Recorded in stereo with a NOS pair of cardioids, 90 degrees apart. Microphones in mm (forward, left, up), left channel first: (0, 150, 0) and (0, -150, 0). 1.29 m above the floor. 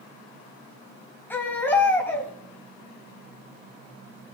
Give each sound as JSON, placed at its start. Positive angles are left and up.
{"t": 1.3, "sound": "a baby crying", "azimuth_deg": 5, "distance_m": 4.0}